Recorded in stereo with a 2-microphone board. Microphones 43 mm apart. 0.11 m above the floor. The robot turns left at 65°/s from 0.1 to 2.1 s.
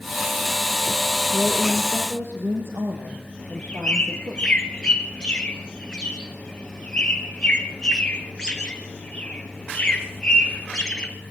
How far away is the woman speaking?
About 3.5 m.